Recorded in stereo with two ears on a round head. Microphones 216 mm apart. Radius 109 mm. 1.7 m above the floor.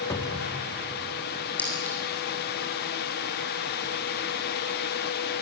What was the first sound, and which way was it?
A cupboard door, 15° left (ahead or behind).